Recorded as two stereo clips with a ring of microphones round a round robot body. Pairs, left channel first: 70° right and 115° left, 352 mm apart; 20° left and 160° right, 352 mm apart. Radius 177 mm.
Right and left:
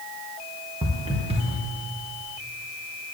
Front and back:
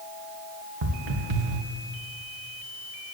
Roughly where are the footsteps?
Behind.